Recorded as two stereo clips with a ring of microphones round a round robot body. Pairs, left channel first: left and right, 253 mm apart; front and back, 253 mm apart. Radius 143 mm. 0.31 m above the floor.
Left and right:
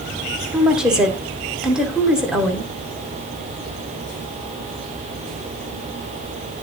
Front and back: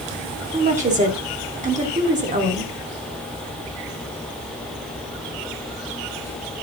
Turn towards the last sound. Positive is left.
turn(degrees=-175)